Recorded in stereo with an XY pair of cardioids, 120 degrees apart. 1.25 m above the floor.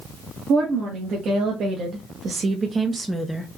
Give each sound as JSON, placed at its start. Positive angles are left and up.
{"t": 0.5, "sound": "a woman speaking", "azimuth_deg": -70, "distance_m": 1.7}